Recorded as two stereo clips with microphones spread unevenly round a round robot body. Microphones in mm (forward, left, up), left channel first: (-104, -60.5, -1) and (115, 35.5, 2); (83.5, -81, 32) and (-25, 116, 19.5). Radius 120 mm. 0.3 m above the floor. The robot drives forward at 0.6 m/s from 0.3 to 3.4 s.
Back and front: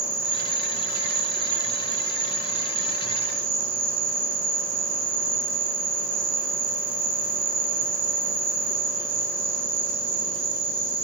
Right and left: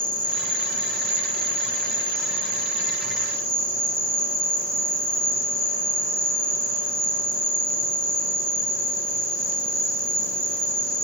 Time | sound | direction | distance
0.0 | an insect | 65° left | 8.5 m